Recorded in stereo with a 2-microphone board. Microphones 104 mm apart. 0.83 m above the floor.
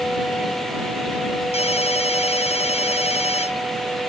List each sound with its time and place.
1.5 s a ringtone: 80° left